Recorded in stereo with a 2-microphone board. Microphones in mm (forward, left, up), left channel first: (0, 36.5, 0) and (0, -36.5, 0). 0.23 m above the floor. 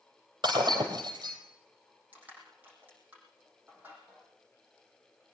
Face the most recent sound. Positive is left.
turn(degrees=-25)  # may be behind; listen again after turning